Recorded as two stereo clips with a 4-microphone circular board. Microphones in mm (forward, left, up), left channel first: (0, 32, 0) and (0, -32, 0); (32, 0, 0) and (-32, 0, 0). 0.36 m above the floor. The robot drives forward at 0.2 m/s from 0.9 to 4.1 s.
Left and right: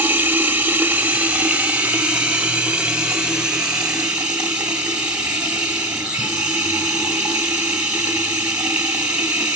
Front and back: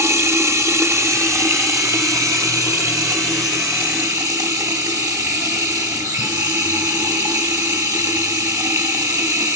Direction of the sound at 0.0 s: 150° right.